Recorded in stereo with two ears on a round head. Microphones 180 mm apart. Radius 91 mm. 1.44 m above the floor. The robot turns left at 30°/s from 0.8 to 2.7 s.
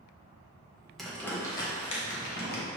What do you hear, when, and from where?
1.0 s crumpling: centre (ahead or behind), 0.9 m; by 2.6 s 50° left (ahead or behind), 0.9 m